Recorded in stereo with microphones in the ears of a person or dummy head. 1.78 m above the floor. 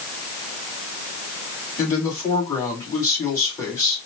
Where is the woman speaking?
20° left (ahead or behind), 3 m.